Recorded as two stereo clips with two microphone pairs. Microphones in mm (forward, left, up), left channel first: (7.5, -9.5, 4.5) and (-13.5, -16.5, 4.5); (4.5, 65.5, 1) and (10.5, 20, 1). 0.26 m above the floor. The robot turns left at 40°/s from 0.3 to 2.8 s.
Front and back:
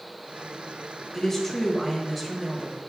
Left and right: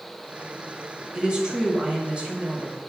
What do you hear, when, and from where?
1.1 s a woman speaking: 35° right, 1.4 m; by 2.8 s 100° right, 1.4 m